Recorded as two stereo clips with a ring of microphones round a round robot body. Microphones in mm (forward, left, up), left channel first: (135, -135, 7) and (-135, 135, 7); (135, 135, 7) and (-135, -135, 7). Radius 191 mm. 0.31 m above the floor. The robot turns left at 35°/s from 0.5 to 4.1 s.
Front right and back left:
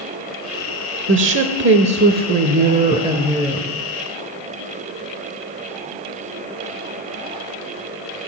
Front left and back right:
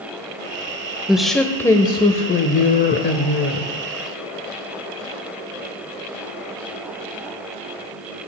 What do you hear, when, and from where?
1.1 s a woman speaking: 140° left, 0.9 m; by 3.7 s 45° left, 0.9 m